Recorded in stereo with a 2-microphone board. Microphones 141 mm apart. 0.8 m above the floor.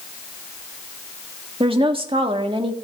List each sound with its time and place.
1.6 s a woman speaking: 40° right (ahead or behind), 1.5 m